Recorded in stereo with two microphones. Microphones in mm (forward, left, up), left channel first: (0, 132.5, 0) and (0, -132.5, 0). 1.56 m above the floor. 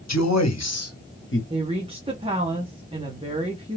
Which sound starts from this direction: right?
A woman speaking, at 1.5 s.